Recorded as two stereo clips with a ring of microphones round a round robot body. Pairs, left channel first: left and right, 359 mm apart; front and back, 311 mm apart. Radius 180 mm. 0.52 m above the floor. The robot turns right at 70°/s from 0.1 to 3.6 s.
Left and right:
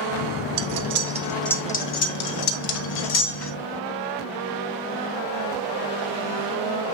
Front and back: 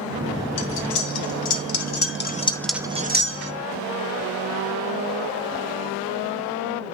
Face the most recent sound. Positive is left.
turn(degrees=155)